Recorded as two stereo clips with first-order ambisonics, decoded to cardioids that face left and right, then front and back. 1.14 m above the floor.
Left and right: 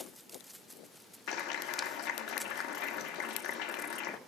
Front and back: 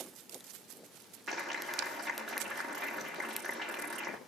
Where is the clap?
105° left, 1.7 m.